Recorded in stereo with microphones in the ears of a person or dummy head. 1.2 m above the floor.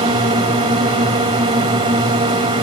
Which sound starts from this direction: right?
A drone, at 0.0 s.